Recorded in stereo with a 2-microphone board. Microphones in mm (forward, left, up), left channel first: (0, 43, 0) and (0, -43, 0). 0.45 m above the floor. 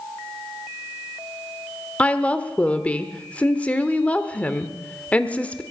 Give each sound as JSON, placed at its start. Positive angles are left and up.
{"t": 2.0, "sound": "a woman speaking", "side_deg": 15, "distance_m": 1.1}